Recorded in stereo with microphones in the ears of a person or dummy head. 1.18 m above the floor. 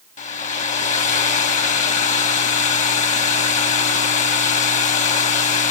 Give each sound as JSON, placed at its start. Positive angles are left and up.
{"t": 0.2, "sound": "a hair dryer", "side_deg": 35, "distance_m": 1.1}